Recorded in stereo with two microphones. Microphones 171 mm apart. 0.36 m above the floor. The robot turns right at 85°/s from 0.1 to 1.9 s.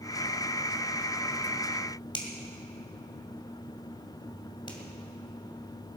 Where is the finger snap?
30° left (ahead or behind), 2 m.